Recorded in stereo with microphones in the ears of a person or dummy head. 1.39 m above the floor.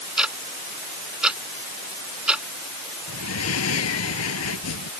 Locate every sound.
0.2 s ticking: 5° right (ahead or behind)
3.1 s breathing: 80° left